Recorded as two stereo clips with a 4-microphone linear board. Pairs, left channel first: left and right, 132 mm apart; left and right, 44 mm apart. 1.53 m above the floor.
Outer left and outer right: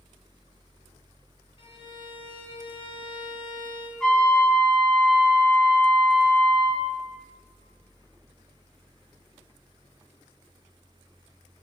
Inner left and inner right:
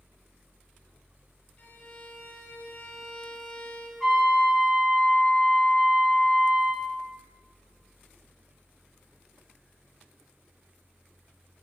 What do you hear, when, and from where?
1.6 s a violin: 40° left (ahead or behind), 1.2 m
4.0 s a trumpet: centre (ahead or behind), 2 m